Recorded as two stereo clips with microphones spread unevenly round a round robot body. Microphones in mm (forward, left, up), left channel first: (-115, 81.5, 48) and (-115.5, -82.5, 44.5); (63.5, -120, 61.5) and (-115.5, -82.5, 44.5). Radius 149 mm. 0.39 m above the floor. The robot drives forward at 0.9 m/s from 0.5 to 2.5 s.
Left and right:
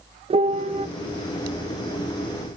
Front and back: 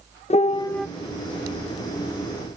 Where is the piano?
60° right, 0.6 m; by 0.9 s 115° right, 0.5 m.